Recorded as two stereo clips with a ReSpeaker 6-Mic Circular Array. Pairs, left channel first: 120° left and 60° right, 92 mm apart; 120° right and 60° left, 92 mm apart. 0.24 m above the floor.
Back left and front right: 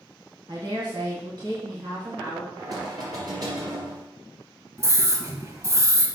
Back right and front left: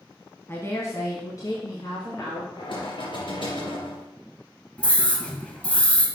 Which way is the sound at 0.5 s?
65° right.